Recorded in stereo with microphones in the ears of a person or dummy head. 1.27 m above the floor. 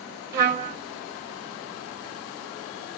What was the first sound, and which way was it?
A trumpet, 50° right (ahead or behind).